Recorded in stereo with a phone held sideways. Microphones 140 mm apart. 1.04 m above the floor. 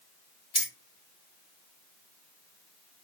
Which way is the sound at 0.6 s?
45° right (ahead or behind).